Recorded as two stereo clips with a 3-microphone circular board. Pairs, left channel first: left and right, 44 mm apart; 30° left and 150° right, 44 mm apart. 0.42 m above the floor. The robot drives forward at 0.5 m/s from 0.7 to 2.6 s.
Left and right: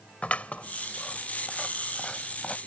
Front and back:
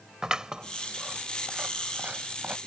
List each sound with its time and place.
0.2 s scissors: 140° left; by 2.6 s 155° left